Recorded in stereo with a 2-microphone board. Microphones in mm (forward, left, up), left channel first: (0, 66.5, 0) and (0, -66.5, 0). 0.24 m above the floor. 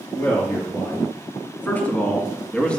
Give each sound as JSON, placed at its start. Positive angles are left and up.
{"t": 0.1, "sound": "a man speaking", "side_deg": 15, "distance_m": 3.0}